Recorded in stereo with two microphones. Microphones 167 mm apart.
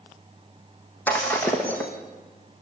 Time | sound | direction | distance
1.1 | breaking glass | 10° left (ahead or behind) | 4.5 m